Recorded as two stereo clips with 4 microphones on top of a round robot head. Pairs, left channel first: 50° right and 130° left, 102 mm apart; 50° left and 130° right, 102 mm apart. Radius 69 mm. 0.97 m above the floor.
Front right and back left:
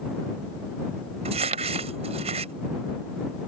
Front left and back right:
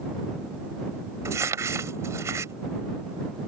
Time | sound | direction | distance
1.2 | crumpling | 165° left | ?